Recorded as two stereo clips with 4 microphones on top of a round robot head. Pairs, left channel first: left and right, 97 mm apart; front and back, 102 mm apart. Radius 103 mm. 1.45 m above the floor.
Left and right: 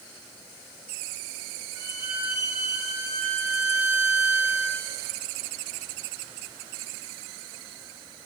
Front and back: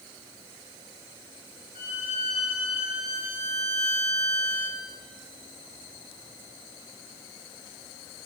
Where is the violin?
10° right, 3 m.